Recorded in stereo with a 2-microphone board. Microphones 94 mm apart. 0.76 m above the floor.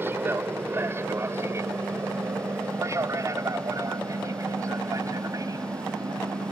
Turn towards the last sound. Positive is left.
turn(degrees=-40)  # may be behind; listen again after turning